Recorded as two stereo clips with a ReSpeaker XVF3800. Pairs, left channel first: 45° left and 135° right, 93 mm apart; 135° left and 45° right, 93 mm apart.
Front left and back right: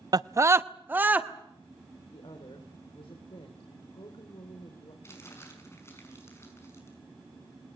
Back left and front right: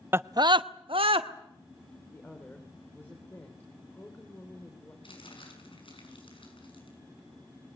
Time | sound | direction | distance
0.1 | a scream | 105° right | 0.5 m
2.1 | a woman speaking | 65° left | 3 m
5.0 | crumpling | 105° left | 6 m